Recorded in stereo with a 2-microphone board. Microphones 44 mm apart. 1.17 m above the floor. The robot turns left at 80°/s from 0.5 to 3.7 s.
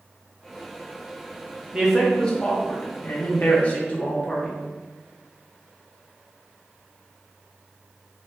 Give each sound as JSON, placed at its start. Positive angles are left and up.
{"t": 1.7, "sound": "a man speaking", "azimuth_deg": -160, "distance_m": 0.9}